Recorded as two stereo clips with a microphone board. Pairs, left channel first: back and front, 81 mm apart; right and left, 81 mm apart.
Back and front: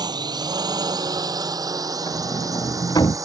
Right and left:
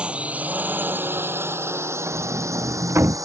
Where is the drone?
15° left; by 3.3 s 45° left.